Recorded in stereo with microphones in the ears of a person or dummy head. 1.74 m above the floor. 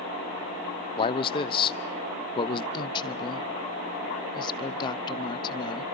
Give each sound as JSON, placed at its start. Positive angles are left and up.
{"t": 1.0, "sound": "a man speaking", "side_deg": 30, "distance_m": 0.7}
{"t": 2.7, "sound": "a woman speaking", "side_deg": 25, "distance_m": 0.8}